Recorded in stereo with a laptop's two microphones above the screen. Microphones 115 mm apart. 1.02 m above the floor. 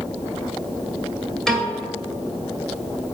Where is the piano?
5° left (ahead or behind), 1.7 m.